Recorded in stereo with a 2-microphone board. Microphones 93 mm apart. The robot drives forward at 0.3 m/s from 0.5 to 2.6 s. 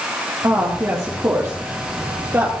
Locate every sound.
0.4 s a woman speaking: 30° right (ahead or behind), 4 m; by 2.5 s 25° right (ahead or behind), 4.5 m